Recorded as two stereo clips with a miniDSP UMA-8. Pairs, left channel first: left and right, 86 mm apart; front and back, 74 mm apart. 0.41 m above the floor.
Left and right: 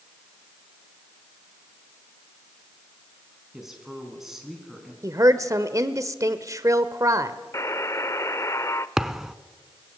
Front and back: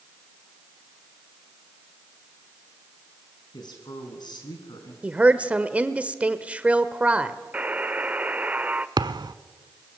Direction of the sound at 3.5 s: 5° right.